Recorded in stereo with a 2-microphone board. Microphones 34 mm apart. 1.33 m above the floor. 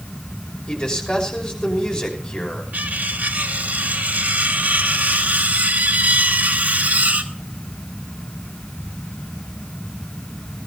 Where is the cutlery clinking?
60° right (ahead or behind), 1.7 m.